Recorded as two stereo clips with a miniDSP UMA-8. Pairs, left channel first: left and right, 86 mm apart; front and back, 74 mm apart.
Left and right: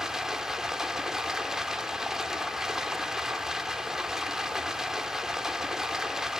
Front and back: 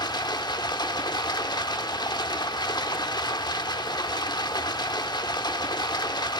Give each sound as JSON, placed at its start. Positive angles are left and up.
{"t": 0.0, "sound": "running water", "azimuth_deg": -5, "distance_m": 1.5}